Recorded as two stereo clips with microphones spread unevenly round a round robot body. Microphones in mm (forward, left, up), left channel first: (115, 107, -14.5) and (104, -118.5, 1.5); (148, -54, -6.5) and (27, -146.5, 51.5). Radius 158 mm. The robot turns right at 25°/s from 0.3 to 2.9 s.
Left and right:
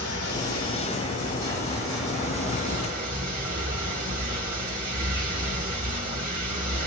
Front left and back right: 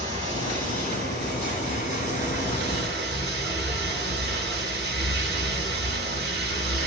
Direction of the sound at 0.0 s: 130° left.